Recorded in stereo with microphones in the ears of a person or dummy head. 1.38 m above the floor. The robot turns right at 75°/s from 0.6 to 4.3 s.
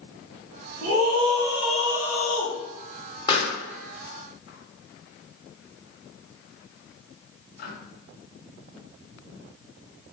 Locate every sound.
0.8 s a scream: 70° right, 1.4 m; by 2.5 s 60° left, 1.4 m
3.3 s a pop: 20° left (ahead or behind), 1.1 m; by 7.7 s 60° left (ahead or behind), 1.1 m